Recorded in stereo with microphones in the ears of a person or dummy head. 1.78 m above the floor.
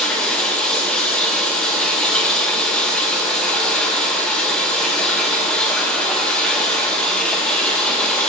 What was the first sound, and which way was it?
Running water, 10° left (ahead or behind).